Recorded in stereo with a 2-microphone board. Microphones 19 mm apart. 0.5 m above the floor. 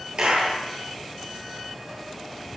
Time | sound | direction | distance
0.2 | a clap | 60° right (ahead or behind) | 9.5 m